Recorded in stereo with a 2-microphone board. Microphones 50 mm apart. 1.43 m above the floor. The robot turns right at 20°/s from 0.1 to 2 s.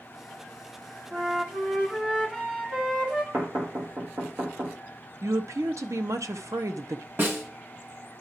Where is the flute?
30° right (ahead or behind), 1.8 m; by 3.2 s 15° right (ahead or behind), 1.8 m.